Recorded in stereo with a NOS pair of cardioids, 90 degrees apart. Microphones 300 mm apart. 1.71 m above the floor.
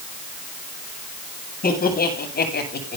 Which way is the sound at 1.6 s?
30° left.